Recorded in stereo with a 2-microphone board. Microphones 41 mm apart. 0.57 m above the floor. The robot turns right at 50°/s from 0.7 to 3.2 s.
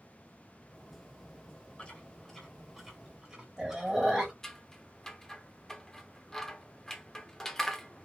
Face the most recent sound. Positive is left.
turn(degrees=15)  # may be behind; listen again after turning